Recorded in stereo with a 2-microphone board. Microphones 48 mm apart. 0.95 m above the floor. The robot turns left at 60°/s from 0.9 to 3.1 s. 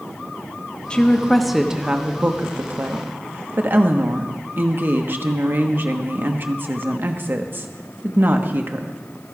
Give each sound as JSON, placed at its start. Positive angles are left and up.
{"t": 0.9, "sound": "a woman speaking", "azimuth_deg": 30, "distance_m": 1.1}